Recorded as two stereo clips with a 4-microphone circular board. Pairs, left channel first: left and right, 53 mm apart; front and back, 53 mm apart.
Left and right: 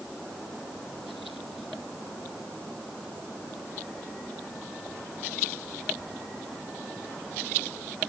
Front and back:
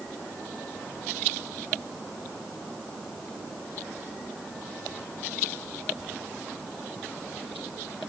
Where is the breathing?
No breathing in this recording.